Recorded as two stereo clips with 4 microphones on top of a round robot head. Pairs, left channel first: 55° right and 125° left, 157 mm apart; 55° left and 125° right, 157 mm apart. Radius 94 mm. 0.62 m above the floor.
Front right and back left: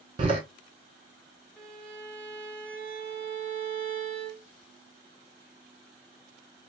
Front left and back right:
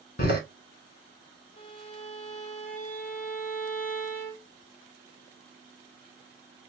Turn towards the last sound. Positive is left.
turn(degrees=25)